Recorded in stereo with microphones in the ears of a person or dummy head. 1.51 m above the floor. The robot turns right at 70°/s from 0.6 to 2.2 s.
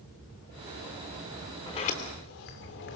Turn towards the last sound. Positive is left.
turn(degrees=60)